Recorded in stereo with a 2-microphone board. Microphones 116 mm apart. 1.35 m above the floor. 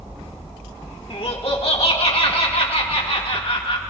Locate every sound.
1.1 s laughter: 55° left (ahead or behind), 1.8 m